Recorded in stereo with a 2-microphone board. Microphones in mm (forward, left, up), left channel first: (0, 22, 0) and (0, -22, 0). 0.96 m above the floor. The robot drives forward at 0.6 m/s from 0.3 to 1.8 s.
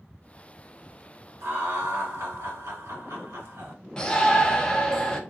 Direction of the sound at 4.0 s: 20° left (ahead or behind).